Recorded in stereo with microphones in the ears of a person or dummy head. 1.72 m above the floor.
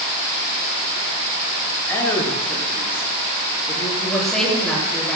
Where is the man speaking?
10° left (ahead or behind), 8 m.